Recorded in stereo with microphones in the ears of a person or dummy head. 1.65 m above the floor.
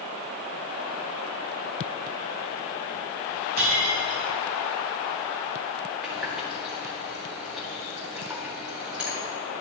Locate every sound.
3.6 s breaking glass: 65° right (ahead or behind), 3 m
6.0 s a running tap: 5° right (ahead or behind), 2.5 m